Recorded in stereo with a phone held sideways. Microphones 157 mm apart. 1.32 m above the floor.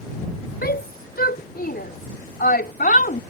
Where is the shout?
85° left; by 3.2 s 70° left (ahead or behind).